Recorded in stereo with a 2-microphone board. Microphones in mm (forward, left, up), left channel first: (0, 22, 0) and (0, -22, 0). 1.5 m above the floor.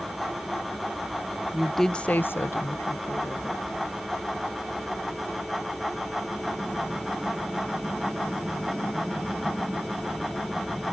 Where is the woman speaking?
10° right (ahead or behind); by 3.6 s 75° left (ahead or behind).